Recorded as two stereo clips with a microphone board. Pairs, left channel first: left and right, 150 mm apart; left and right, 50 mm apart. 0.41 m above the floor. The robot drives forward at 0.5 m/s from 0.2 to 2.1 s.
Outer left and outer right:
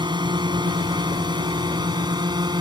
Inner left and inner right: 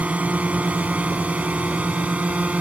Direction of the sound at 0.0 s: 30° right (ahead or behind).